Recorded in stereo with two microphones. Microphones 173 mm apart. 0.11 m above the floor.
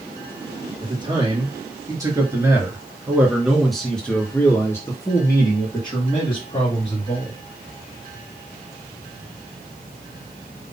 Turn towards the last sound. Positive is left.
turn(degrees=40)  # may be behind; listen again after turning